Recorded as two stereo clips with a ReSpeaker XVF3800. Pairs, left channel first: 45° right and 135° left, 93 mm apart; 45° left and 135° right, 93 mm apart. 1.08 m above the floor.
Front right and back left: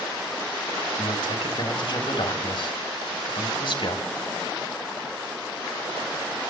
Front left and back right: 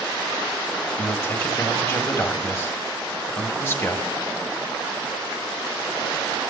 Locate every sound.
1.0 s a man speaking: 15° right, 3.5 m